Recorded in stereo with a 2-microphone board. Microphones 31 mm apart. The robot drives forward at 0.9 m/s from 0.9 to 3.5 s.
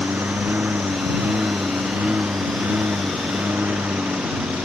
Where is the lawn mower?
85° right; by 4.7 s 75° right (ahead or behind).